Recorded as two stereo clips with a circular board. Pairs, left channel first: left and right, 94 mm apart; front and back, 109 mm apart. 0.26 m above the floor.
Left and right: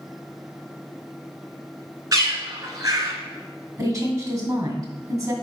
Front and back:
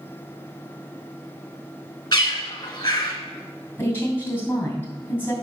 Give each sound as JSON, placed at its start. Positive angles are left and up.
{"t": 2.1, "sound": "a bird", "azimuth_deg": -45, "distance_m": 1.3}
{"t": 3.8, "sound": "a woman speaking", "azimuth_deg": -65, "distance_m": 2.0}